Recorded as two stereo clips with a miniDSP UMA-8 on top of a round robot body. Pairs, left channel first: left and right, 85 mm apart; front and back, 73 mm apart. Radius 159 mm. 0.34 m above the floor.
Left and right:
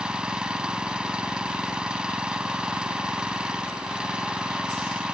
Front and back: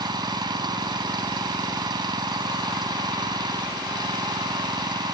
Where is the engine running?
170° right.